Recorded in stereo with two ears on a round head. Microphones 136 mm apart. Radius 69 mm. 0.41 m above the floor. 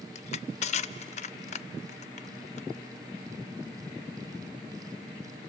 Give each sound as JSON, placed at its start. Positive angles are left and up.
{"t": 0.1, "sound": "crushing", "side_deg": 50, "distance_m": 0.5}